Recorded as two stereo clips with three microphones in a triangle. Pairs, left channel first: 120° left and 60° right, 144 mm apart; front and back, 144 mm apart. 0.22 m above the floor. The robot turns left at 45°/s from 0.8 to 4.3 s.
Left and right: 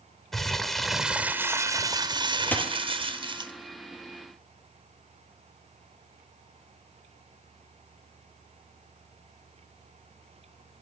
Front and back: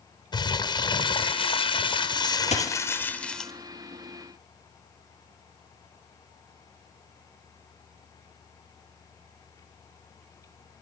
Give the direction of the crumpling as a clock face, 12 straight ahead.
11 o'clock.